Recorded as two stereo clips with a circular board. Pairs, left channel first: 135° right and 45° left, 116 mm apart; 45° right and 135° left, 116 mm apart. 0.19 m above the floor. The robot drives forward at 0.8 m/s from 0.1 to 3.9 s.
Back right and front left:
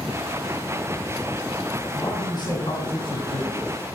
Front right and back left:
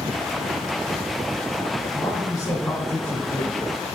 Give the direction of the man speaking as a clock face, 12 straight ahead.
3 o'clock.